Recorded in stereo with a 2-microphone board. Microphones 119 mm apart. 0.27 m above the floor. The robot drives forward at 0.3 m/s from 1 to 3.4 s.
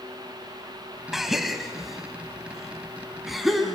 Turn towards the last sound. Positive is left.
turn(degrees=0)  # may be behind; listen again after turning